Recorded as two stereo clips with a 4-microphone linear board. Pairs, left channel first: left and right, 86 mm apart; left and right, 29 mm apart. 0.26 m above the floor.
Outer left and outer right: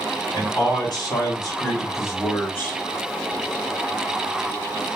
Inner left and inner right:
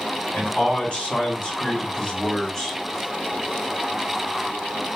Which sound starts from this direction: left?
A man speaking, at 0.3 s.